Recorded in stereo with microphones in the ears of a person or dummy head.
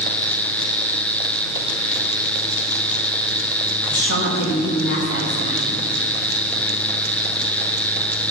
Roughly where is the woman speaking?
Left.